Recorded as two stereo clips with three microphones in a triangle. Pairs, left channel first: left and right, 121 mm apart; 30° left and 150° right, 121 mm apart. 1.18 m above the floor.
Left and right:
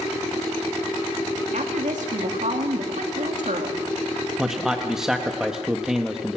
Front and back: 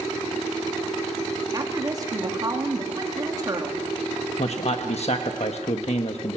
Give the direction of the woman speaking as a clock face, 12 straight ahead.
3 o'clock.